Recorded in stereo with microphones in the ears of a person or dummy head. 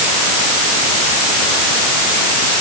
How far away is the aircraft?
I don't hear an aircraft.